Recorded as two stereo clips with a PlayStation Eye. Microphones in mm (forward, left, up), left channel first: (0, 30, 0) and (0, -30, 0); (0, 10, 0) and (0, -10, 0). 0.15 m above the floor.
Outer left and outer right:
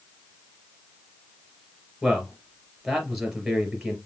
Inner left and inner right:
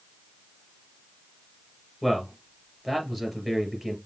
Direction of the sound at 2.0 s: Centre (ahead or behind).